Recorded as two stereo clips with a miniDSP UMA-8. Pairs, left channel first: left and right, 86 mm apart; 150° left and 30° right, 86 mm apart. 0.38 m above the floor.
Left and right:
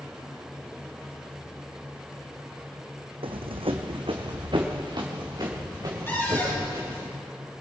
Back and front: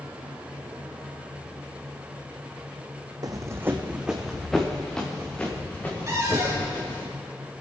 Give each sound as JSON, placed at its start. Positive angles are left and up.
{"t": 3.2, "sound": "running footsteps", "azimuth_deg": -75, "distance_m": 1.4}
{"t": 6.1, "sound": "a cupboard door", "azimuth_deg": 25, "distance_m": 4.0}